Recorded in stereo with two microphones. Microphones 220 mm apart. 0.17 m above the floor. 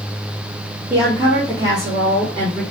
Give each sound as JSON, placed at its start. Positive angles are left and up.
{"t": 0.9, "sound": "a woman speaking", "side_deg": -5, "distance_m": 3.5}